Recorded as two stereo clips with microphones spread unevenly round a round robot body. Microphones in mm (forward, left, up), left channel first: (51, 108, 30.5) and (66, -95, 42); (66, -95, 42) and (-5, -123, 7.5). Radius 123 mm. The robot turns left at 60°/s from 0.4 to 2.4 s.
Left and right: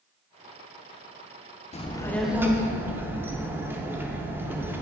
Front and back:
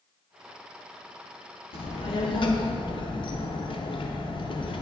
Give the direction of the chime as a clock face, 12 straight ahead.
No chime in this recording.